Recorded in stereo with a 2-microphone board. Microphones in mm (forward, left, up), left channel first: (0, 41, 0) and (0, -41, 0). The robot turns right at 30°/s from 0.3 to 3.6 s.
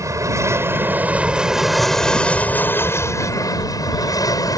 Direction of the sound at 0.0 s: 45° right.